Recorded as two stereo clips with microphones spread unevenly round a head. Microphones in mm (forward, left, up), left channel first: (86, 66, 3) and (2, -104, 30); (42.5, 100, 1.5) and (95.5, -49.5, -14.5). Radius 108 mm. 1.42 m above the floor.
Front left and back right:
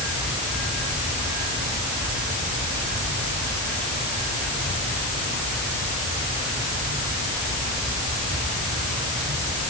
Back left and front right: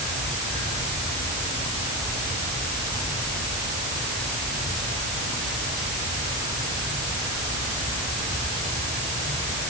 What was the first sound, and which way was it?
Only background noise.